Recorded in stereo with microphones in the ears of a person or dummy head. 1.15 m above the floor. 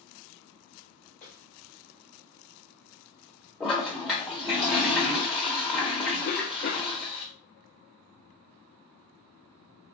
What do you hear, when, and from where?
1.2 s a snare drum: 10° left (ahead or behind), 1.1 m
3.6 s a toilet flushing: 5° right (ahead or behind), 0.8 m
6.2 s a cough: 45° left (ahead or behind), 0.6 m